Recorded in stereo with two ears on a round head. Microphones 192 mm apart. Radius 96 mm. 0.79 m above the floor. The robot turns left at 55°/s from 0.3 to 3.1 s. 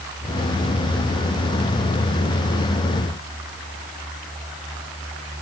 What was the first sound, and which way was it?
Only background noise.